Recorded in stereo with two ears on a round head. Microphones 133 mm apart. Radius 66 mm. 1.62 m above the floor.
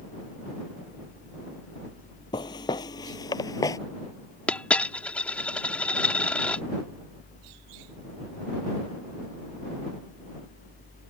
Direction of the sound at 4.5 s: 10° left (ahead or behind).